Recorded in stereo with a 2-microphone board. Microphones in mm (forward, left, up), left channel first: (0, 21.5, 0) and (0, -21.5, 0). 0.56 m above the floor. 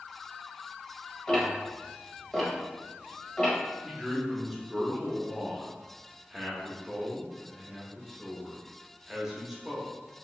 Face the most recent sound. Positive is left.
turn(degrees=-5)  # may be behind; listen again after turning